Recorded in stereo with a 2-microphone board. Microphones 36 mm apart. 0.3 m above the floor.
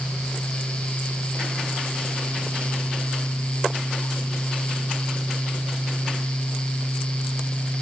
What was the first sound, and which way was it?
Only background noise.